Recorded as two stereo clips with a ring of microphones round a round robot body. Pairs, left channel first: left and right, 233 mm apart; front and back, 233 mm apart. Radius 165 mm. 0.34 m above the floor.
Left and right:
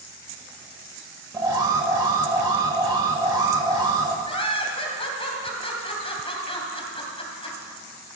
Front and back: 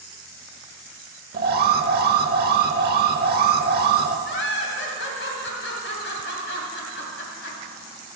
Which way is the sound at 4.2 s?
25° left.